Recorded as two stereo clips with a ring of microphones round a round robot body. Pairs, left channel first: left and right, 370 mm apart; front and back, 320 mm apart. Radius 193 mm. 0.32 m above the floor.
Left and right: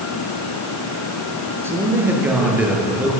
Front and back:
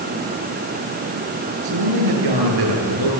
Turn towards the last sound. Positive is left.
turn(degrees=180)